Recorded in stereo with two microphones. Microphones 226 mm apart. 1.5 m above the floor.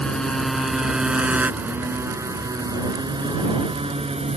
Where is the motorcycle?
5° left (ahead or behind); by 4.4 s 30° right (ahead or behind).